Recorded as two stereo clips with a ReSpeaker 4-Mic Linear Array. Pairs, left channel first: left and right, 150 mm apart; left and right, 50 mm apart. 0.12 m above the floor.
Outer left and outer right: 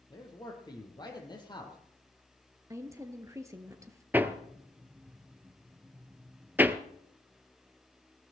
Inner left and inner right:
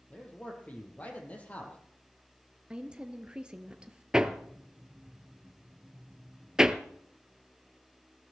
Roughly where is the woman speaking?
Centre.